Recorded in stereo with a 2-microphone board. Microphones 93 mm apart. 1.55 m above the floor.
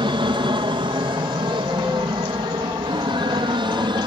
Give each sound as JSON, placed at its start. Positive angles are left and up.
{"t": 0.0, "sound": "an aircraft", "side_deg": -60}